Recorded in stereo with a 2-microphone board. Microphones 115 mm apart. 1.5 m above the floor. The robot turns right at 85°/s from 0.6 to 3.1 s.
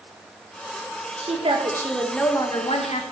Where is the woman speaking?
75° right, 1.9 m; by 3.0 s 80° left, 1.9 m.